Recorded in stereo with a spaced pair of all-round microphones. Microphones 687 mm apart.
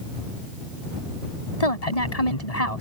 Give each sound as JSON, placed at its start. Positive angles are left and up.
{"t": 1.6, "sound": "a woman speaking", "side_deg": 60}